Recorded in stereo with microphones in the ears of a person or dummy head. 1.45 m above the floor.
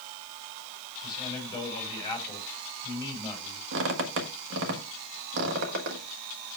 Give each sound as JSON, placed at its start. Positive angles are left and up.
{"t": 1.0, "sound": "a man speaking", "side_deg": 25, "distance_m": 5.0}
{"t": 3.7, "sound": "a squeak", "side_deg": -75, "distance_m": 1.5}